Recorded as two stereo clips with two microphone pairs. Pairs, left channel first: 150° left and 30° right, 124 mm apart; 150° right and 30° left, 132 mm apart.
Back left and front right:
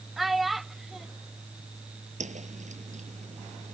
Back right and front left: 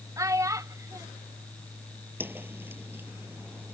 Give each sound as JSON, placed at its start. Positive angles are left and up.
{"t": 0.2, "sound": "a child speaking", "azimuth_deg": 55}
{"t": 2.2, "sound": "a whoosh", "azimuth_deg": -45}